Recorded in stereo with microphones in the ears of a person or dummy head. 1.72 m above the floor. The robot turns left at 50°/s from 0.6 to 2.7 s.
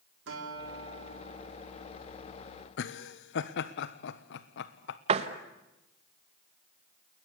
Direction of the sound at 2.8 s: 70° left (ahead or behind).